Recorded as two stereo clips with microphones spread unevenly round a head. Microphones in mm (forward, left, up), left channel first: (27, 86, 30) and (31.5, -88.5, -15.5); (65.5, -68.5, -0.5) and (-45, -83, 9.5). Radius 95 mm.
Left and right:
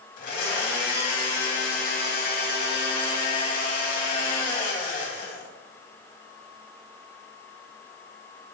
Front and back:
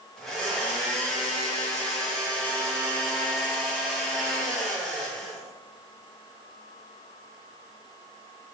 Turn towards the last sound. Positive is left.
turn(degrees=95)